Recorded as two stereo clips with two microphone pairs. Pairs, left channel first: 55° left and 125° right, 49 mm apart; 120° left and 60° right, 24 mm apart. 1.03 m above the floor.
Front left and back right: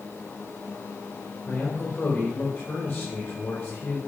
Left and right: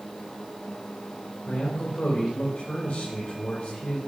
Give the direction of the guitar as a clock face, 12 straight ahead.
No guitar in this recording.